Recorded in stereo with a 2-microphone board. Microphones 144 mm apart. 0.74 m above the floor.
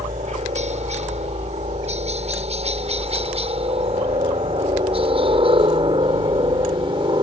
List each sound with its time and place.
0.0 s a helicopter: 55° right (ahead or behind); by 7.2 s 35° right (ahead or behind)